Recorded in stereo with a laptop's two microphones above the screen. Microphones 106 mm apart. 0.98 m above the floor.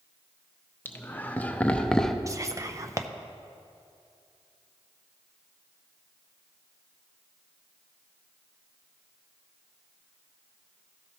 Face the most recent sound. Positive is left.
turn(degrees=-30)  # may be behind; listen again after turning